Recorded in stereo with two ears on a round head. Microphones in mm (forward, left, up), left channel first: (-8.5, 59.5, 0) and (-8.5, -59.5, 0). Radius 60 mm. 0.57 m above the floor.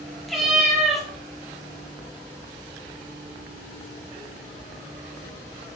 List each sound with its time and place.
0.3 s a cat meowing: centre (ahead or behind), 2.5 m